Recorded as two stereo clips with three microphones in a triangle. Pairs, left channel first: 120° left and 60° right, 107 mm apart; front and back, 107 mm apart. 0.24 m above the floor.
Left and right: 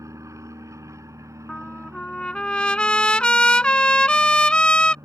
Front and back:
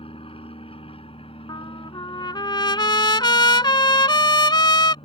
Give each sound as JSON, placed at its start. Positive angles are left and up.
{"t": 0.0, "sound": "an aircraft", "azimuth_deg": -5}
{"t": 1.5, "sound": "a trumpet", "azimuth_deg": 40}